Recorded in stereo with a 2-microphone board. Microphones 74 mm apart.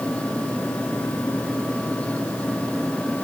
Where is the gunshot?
I don't hear a gunshot.